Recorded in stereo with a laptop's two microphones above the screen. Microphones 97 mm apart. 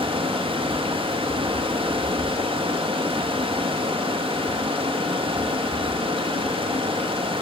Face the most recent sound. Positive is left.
turn(degrees=-85)